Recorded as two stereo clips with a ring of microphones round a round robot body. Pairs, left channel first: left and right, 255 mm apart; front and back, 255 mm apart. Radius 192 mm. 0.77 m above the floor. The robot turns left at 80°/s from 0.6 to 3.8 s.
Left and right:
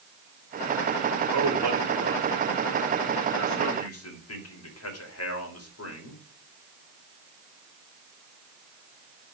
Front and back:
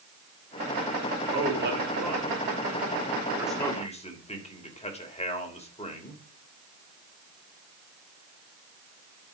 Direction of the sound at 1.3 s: 95° right.